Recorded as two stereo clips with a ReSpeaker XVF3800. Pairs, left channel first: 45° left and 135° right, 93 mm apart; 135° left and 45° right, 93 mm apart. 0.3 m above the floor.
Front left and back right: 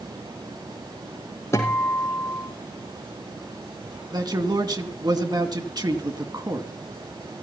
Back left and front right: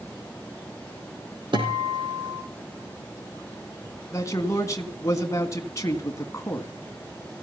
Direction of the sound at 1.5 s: 15° right.